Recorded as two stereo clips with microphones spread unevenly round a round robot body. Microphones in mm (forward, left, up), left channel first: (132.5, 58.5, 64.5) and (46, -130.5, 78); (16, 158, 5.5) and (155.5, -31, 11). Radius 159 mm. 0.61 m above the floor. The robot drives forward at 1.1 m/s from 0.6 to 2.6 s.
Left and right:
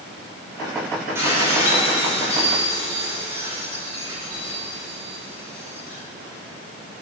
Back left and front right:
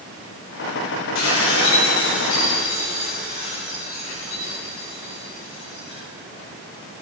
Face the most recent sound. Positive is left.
turn(degrees=170)